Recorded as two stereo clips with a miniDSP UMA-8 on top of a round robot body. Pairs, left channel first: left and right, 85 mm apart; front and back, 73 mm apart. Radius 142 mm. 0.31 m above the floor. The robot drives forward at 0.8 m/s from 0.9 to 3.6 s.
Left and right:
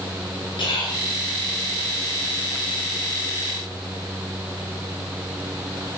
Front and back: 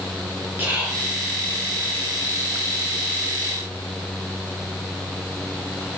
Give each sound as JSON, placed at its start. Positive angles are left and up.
{"t": 0.6, "sound": "whispering", "azimuth_deg": 115, "distance_m": 5.0}